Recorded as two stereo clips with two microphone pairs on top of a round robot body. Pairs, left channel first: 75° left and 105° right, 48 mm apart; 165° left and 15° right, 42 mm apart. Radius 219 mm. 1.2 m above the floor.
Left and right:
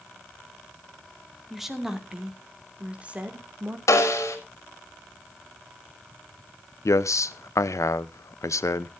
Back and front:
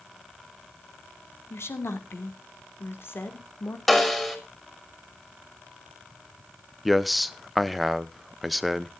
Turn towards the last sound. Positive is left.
turn(degrees=75)